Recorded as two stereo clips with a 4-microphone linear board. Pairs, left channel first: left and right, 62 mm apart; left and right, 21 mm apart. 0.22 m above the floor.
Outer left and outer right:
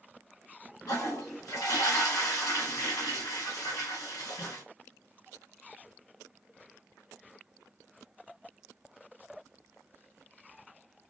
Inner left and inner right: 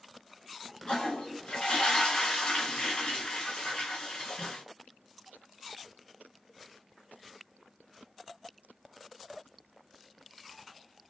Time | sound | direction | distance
0.9 | a toilet flushing | 65° left (ahead or behind) | 2 m